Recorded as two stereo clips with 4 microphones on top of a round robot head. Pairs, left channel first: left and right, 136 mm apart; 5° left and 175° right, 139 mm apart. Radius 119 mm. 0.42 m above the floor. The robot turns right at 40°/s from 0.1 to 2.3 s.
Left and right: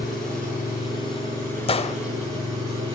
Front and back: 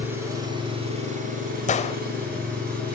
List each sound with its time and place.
0.0 s an engine running: 105° left, 7 m; by 2.9 s 165° right, 7 m
1.7 s a gunshot: 40° left, 0.8 m; by 2.0 s 50° left, 0.8 m